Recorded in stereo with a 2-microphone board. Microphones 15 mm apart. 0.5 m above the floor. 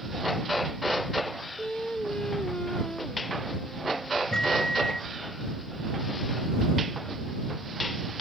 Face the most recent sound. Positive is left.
turn(degrees=45)  # may be behind; listen again after turning